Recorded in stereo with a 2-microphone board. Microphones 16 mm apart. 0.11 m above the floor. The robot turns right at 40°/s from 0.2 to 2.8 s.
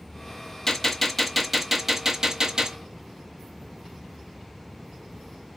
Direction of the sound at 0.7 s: 150° left.